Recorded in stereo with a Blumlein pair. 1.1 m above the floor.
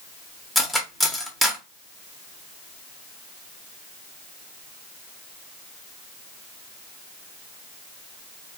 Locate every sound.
0.6 s cutlery clinking: straight ahead, 0.6 m